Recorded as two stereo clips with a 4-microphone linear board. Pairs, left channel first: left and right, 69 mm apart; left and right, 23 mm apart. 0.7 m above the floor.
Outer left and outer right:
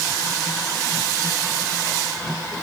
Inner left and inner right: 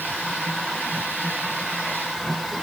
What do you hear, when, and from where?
Only background noise.